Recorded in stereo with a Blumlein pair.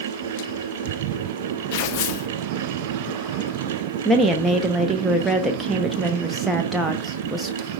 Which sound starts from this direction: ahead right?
A fan, at 0.0 s.